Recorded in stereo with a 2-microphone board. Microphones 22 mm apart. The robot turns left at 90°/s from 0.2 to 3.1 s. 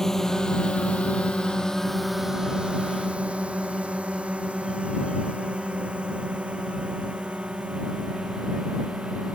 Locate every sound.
0.0 s a drone: 20° left (ahead or behind); by 9.3 s 80° right